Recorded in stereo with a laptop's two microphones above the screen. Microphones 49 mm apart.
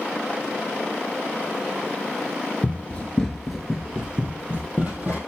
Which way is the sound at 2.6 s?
35° left (ahead or behind).